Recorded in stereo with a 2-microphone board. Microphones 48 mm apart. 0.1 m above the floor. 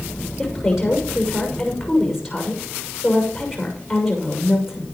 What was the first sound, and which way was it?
A woman speaking, 5° right (ahead or behind).